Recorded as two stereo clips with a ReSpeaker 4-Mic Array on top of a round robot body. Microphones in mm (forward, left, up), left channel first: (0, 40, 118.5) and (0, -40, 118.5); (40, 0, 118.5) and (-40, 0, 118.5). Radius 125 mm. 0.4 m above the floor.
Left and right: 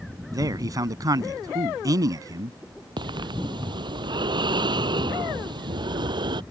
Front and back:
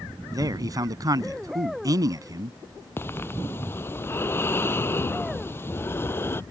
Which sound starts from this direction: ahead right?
Breathing, at 3.0 s.